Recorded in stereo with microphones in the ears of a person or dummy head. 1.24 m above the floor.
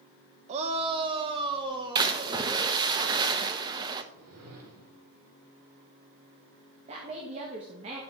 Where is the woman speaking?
40° right (ahead or behind), 1.5 m.